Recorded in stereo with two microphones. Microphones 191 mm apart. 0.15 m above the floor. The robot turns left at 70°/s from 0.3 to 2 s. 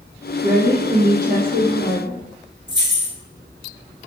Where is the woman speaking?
10° left, 3 m; by 2.2 s 100° right, 3 m.